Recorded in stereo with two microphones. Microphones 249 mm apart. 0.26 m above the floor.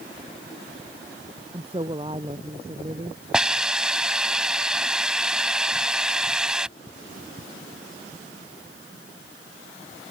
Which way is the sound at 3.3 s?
5° right (ahead or behind).